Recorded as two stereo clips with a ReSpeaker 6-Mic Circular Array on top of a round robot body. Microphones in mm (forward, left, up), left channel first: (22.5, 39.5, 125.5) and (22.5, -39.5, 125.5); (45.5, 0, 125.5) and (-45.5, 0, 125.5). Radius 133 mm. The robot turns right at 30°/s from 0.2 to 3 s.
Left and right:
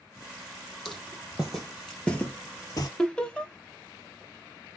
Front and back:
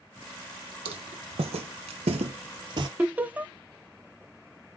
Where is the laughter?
145° left, 0.8 m.